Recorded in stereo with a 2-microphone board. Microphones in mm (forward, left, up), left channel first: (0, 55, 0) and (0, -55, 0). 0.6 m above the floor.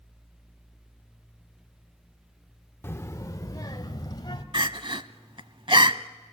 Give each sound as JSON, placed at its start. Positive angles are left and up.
{"t": 2.8, "sound": "a child speaking", "side_deg": 20, "distance_m": 0.7}
{"t": 4.5, "sound": "crying", "side_deg": -55, "distance_m": 0.7}